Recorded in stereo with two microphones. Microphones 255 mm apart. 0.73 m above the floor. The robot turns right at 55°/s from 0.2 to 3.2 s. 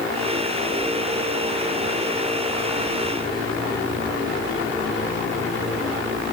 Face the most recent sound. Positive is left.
No sound to turn to.